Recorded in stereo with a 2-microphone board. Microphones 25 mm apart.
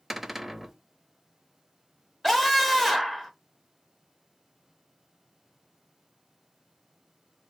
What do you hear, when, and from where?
0.1 s a cupboard door: 10° right (ahead or behind), 0.6 m
2.2 s a scream: 5° left (ahead or behind), 0.9 m